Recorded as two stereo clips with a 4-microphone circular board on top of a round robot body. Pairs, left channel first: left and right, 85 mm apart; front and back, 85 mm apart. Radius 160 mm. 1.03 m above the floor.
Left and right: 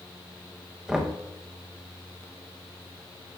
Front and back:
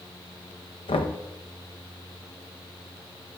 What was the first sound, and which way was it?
Knocking, 10° right.